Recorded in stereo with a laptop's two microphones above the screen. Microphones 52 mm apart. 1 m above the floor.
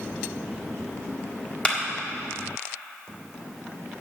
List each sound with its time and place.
1.6 s a clap: 25° left (ahead or behind), 1.6 m